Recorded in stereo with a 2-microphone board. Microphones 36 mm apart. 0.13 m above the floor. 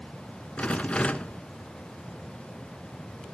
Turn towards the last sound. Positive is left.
turn(degrees=35)  # may be behind; listen again after turning